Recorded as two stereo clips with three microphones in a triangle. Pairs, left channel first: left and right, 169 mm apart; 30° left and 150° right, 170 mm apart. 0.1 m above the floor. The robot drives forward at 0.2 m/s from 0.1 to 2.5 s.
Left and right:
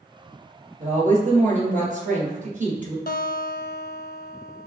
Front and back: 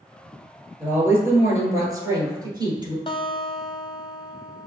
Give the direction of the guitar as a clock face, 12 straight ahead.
9 o'clock.